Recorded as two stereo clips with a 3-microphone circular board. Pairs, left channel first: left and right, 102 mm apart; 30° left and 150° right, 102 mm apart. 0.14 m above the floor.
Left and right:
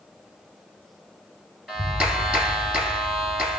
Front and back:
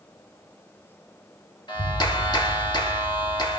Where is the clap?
10° right, 2.5 m.